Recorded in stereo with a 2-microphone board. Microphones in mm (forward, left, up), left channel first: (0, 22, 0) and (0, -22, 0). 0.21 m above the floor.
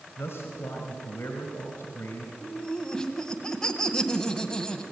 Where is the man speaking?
65° left (ahead or behind), 3 m.